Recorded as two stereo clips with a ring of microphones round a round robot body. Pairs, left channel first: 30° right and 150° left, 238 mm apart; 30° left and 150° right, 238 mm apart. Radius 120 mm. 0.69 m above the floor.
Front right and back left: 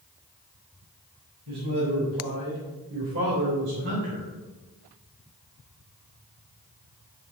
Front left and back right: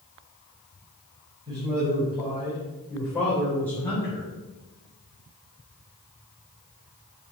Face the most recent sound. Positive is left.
turn(degrees=105)